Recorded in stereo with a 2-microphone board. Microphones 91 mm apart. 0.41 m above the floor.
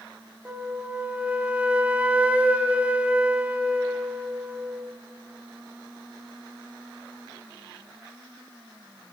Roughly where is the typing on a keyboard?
No typing on a keyboard in this recording.